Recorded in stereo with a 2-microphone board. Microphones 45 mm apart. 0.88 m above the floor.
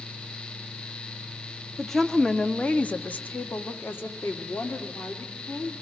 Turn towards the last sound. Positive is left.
turn(degrees=80)